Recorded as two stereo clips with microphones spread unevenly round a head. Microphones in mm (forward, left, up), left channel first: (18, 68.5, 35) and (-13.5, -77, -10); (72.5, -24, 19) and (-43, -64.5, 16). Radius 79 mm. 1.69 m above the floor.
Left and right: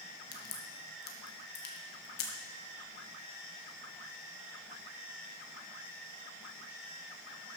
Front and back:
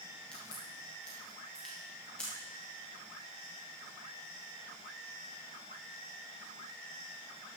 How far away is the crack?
About 1.6 m.